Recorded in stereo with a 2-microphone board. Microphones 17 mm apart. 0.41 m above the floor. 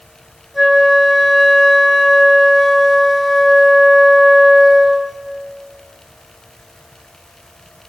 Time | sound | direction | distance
0.5 | a flute | 10° right (ahead or behind) | 4.5 m